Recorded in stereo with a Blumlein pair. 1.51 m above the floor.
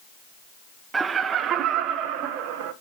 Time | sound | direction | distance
0.9 | laughter | 15° right | 0.7 m